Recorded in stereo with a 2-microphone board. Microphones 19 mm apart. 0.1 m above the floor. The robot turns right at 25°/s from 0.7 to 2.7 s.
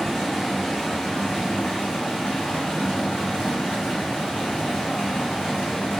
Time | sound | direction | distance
0.0 | running water | 40° left | 1.0 m